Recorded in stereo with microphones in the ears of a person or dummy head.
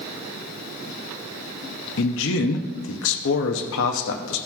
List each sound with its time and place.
2.0 s a man speaking: 75° left (ahead or behind), 0.6 m